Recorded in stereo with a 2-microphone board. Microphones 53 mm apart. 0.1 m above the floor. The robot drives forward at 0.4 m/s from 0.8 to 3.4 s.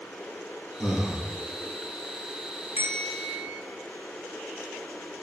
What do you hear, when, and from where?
0.8 s breathing: 10° right (ahead or behind), 1.0 m
2.8 s a bell: 35° right (ahead or behind), 1.0 m; by 3.6 s 30° right (ahead or behind), 1.2 m